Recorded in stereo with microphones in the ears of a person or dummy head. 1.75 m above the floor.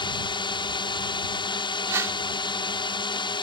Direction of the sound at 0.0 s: 20° left (ahead or behind).